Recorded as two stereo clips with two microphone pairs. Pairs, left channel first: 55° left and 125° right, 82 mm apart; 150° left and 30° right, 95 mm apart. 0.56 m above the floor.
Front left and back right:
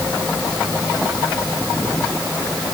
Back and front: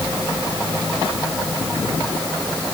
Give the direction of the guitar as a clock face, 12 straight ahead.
No guitar in this recording.